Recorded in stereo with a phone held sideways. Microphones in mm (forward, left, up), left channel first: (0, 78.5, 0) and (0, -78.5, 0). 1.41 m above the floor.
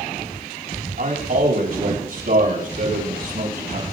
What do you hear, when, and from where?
1.0 s a man speaking: 75° right (ahead or behind), 7 m